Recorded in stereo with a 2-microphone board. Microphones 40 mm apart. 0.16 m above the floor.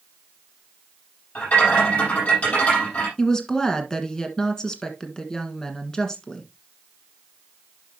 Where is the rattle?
45° left (ahead or behind), 6.5 m.